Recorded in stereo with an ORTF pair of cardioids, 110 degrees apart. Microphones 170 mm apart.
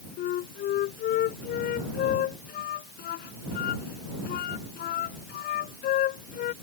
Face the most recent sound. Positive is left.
turn(degrees=65)